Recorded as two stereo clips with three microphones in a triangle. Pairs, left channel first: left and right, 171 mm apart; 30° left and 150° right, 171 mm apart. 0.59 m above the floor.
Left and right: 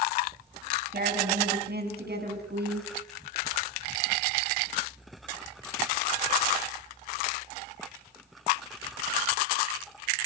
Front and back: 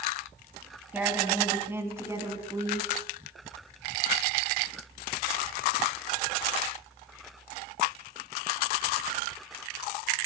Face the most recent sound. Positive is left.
turn(degrees=-80)